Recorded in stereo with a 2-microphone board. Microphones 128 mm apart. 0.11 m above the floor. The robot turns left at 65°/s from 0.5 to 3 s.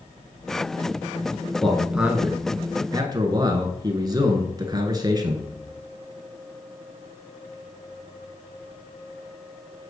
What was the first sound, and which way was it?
A man speaking, 10° left.